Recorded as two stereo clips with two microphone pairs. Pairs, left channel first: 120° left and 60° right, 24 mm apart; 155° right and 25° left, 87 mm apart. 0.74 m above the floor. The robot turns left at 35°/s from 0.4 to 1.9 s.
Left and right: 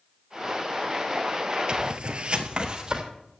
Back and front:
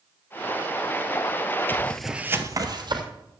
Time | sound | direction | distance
1.7 | footsteps | 100° right | 1.1 m